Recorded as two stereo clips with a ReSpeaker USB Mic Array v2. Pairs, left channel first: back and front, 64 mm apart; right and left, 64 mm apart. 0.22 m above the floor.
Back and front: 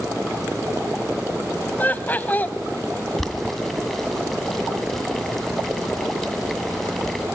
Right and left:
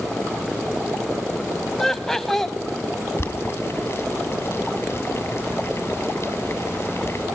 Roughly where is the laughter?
Behind.